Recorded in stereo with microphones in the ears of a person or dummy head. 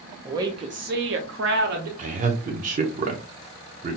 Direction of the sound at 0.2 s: 15° right (ahead or behind).